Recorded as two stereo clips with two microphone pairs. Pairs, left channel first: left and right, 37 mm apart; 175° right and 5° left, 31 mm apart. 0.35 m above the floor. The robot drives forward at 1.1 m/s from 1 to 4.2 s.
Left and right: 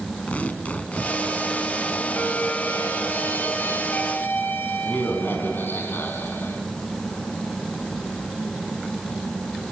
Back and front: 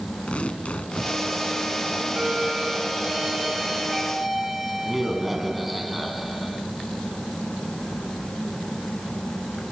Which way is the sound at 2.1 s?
65° left.